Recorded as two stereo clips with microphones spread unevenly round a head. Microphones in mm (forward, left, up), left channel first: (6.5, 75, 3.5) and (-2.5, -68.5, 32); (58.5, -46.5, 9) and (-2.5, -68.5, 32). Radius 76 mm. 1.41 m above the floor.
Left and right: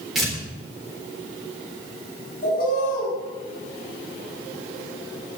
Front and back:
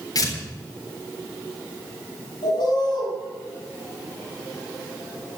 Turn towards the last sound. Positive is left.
turn(degrees=50)